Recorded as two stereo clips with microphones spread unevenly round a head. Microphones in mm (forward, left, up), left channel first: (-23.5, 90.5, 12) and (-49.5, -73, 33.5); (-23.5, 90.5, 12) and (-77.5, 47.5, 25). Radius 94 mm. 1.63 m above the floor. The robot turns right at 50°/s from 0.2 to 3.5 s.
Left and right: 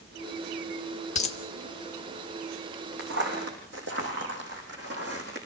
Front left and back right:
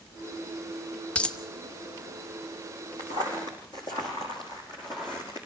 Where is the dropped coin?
115° left, 1.2 m; by 1.4 s 125° left, 1.2 m.